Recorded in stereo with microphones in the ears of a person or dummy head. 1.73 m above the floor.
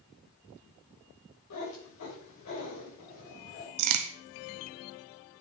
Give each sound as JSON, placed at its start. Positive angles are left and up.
{"t": 1.5, "sound": "a cat meowing", "side_deg": 75, "distance_m": 4.0}
{"t": 3.8, "sound": "a crack", "side_deg": -70, "distance_m": 0.7}